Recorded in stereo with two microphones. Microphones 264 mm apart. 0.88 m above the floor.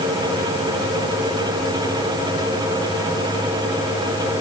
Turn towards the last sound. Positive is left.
No sound to turn to.